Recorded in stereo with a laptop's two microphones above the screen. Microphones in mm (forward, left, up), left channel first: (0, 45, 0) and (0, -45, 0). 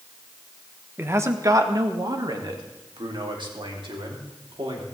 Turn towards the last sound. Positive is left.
turn(degrees=-65)  # may be behind; listen again after turning